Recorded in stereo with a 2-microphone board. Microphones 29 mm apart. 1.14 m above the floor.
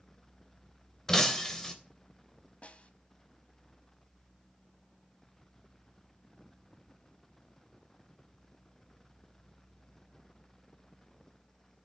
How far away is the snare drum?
About 1.7 m.